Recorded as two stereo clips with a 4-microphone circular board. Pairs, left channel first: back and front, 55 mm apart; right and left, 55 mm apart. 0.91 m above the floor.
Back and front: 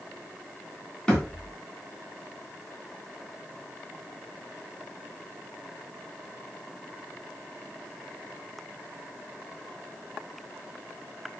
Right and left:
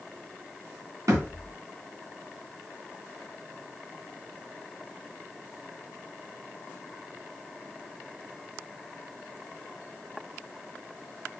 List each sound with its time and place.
1.1 s a thud: 105° left, 3 m